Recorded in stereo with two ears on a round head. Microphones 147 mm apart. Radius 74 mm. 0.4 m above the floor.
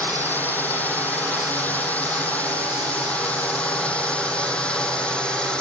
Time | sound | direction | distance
0.0 | a drone | 10° left (ahead or behind) | ?